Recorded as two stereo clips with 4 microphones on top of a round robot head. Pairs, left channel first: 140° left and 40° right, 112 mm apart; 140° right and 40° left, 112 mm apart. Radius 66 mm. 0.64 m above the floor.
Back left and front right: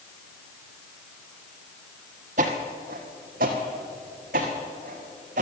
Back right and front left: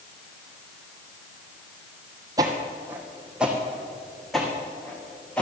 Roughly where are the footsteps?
Ahead.